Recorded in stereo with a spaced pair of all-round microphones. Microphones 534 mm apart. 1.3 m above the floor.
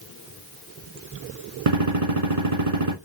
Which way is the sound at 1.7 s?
80° right.